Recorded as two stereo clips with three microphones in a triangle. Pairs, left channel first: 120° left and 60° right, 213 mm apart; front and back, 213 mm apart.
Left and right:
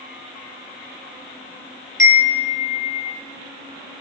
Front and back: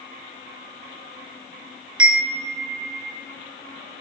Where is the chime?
170° left, 3.5 m.